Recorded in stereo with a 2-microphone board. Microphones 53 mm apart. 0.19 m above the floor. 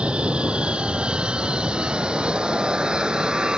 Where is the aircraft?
20° right (ahead or behind); by 3.6 s 15° right (ahead or behind).